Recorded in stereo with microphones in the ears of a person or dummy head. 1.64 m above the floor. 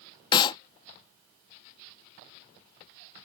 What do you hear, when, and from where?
0.3 s a clap: 30° left (ahead or behind)